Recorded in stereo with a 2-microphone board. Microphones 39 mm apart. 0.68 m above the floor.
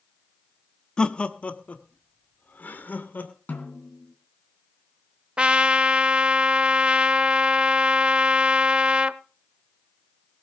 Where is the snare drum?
55° left (ahead or behind), 3 m.